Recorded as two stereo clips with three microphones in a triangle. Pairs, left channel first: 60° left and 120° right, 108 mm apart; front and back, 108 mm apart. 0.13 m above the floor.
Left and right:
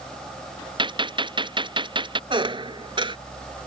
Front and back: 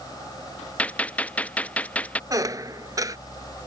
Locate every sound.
0.8 s a gunshot: 80° right
2.3 s a squeak: 135° right